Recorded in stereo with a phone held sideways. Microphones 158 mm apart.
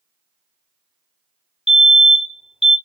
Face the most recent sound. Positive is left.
turn(degrees=35)  # may be behind; listen again after turning